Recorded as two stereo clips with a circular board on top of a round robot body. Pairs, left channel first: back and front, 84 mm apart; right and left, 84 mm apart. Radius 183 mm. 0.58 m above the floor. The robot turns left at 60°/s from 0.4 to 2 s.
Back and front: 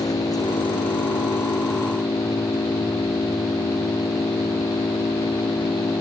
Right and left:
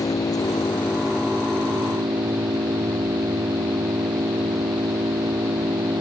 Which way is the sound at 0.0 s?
135° right.